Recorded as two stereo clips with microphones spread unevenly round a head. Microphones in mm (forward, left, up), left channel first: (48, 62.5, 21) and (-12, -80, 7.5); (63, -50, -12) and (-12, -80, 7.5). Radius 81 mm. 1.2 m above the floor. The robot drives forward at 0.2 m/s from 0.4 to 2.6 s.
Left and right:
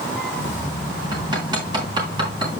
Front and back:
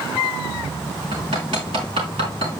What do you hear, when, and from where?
1.1 s hammering: straight behind, 4 m